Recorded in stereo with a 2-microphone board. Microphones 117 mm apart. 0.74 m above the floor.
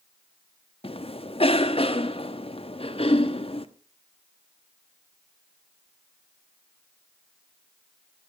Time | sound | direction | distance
0.8 | a cough | 50° left (ahead or behind) | 1.0 m